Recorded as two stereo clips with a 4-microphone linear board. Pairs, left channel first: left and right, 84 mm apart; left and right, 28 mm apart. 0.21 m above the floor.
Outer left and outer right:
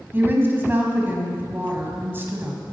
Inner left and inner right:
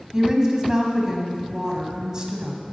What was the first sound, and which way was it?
A woman speaking, 25° right (ahead or behind).